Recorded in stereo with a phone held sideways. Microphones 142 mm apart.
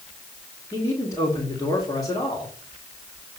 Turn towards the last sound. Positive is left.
turn(degrees=25)  # may be behind; listen again after turning